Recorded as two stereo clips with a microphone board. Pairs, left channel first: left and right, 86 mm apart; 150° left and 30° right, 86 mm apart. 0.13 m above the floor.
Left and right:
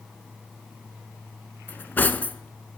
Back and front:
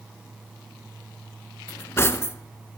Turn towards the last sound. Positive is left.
turn(degrees=135)